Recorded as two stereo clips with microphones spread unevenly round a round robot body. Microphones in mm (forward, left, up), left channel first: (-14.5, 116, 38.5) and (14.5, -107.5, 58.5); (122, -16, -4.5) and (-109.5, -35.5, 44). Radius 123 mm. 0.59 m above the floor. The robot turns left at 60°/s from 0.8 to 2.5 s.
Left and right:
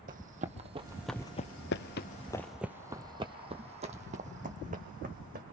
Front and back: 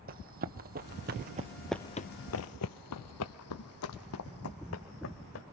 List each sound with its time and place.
0.1 s running footsteps: 135° right, 1.3 m; by 5.4 s 30° right, 2.5 m